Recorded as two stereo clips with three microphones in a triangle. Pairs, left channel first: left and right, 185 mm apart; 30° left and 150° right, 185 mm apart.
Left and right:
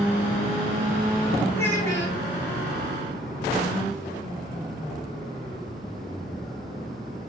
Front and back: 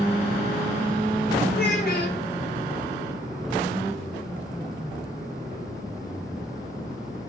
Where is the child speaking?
15° left, 1.6 m.